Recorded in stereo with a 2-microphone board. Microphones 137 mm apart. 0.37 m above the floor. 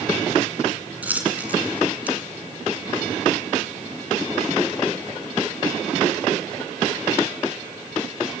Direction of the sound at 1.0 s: 10° right (ahead or behind).